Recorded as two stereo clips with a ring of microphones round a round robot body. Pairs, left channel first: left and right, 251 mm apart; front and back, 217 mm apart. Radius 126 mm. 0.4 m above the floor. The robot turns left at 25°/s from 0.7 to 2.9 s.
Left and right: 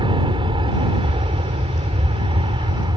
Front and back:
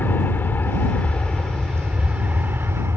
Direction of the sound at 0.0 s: 65° right.